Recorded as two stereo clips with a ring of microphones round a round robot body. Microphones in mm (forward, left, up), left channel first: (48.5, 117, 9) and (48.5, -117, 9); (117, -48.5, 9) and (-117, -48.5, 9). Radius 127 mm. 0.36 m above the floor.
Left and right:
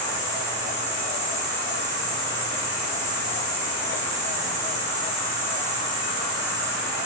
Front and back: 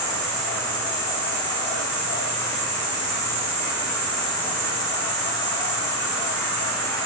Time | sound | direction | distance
0.0 | an insect | 105° left | 1.0 m